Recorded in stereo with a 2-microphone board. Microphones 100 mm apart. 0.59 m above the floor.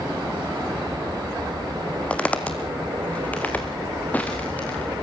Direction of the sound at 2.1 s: 15° left (ahead or behind).